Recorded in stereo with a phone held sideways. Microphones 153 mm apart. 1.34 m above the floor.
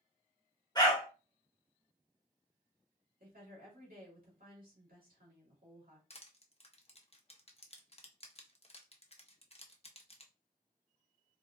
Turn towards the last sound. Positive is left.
turn(degrees=40)  # may be behind; listen again after turning